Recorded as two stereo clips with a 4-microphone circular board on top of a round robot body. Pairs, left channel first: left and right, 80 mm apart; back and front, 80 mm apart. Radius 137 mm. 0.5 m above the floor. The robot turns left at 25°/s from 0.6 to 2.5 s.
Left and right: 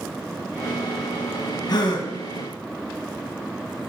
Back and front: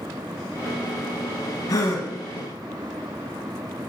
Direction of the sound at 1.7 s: 130° left.